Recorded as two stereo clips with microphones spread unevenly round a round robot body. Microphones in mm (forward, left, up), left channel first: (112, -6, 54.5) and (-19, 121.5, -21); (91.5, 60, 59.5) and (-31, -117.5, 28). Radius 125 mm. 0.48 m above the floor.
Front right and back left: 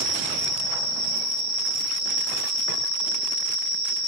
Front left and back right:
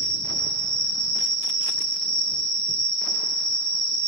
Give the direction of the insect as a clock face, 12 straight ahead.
7 o'clock.